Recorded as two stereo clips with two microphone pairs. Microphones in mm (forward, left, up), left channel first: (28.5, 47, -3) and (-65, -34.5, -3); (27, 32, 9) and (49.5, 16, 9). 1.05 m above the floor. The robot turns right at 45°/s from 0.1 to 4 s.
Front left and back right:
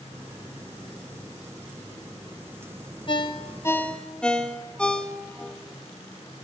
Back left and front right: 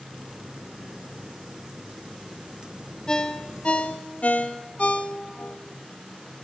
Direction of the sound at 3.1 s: 80° left.